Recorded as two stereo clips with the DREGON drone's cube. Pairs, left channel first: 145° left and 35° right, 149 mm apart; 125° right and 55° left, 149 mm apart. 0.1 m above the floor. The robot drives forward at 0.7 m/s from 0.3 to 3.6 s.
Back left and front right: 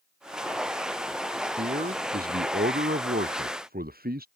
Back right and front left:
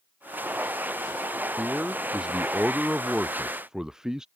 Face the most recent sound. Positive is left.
turn(degrees=-30)